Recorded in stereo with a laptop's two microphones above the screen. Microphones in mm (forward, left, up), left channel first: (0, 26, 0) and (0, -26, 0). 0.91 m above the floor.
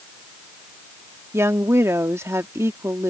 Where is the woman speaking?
70° right (ahead or behind).